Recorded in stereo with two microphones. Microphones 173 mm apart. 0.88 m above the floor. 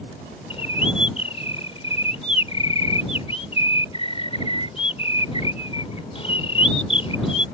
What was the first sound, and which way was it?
A bird, 35° left (ahead or behind).